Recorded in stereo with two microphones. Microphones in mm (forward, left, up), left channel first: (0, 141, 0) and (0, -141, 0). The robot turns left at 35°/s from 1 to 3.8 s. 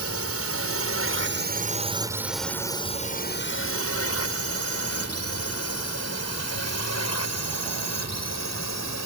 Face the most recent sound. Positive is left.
turn(degrees=70)  # may be behind; listen again after turning